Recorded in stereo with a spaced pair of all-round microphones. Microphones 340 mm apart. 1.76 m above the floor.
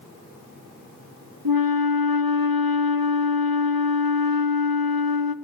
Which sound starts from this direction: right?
A flute, at 1.4 s.